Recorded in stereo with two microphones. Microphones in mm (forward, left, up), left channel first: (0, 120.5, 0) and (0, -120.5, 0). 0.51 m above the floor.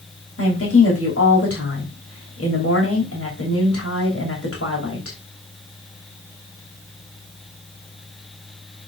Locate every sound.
0.4 s a woman speaking: 70° left (ahead or behind), 2.5 m